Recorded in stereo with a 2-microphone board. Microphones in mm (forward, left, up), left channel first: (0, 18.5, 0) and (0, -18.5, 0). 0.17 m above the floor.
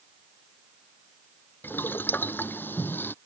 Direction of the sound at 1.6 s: 65° left (ahead or behind).